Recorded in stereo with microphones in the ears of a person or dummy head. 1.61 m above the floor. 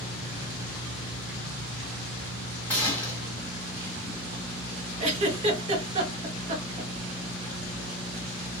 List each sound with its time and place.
2.7 s a gunshot: 10° left (ahead or behind), 1.5 m
5.0 s a giggle: 30° right (ahead or behind), 0.6 m